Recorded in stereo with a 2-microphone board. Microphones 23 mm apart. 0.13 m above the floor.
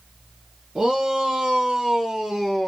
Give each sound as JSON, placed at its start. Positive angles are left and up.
{"t": 0.8, "sound": "a shout", "side_deg": -45, "distance_m": 2.0}